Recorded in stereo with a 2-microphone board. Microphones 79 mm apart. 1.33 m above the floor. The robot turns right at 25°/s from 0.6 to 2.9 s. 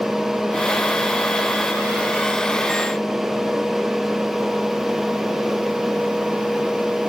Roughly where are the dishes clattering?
I don't hear dishes clattering.